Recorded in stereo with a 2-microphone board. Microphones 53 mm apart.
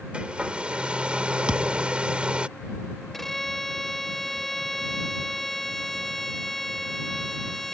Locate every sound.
0.1 s a hair dryer: 20° right (ahead or behind)
1.5 s a thud: 20° right (ahead or behind)
3.1 s a violin: 5° left (ahead or behind)